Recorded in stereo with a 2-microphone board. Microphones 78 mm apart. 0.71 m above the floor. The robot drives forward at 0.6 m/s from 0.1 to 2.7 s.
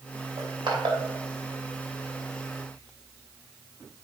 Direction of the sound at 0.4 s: 70° right (ahead or behind).